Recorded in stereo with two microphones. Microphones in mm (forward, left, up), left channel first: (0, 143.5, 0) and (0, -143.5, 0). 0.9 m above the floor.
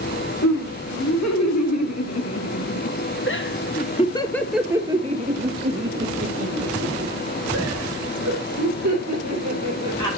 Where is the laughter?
75° left (ahead or behind), 2.5 m; by 10.2 s 70° right (ahead or behind), 3.5 m.